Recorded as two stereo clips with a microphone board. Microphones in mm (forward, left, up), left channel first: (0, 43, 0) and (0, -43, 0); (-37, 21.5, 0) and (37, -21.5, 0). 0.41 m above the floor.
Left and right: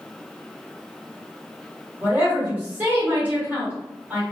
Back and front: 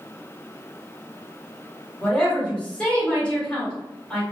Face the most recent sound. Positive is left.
turn(degrees=-140)